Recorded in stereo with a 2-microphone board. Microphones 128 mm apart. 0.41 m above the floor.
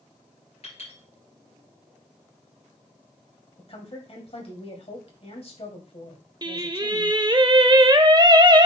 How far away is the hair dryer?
I don't hear a hair dryer.